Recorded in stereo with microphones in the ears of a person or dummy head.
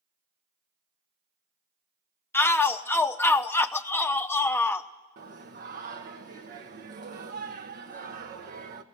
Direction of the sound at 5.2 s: 45° right (ahead or behind).